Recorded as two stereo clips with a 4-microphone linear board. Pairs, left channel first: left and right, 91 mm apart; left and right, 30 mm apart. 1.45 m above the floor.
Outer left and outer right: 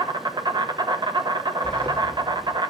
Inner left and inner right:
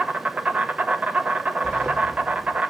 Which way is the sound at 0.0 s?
55° right (ahead or behind).